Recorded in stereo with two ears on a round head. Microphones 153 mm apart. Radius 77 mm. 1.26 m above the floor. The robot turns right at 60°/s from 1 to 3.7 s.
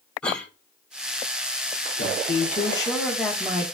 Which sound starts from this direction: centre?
A cough, at 0.2 s.